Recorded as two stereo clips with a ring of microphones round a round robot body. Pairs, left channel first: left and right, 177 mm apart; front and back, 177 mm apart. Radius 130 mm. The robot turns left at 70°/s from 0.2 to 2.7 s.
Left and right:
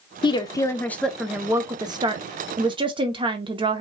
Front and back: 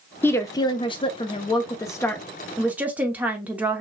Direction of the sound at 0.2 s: 65° left.